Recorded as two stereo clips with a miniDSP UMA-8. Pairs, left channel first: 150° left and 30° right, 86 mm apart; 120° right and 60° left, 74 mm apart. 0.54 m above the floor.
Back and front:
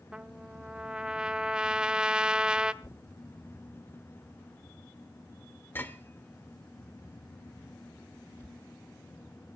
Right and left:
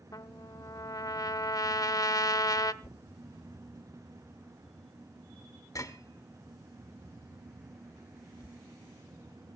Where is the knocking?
150° right, 1.7 m.